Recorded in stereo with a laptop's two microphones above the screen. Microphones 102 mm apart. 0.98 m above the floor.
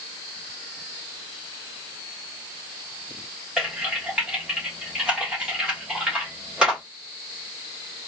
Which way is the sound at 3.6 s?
10° right (ahead or behind).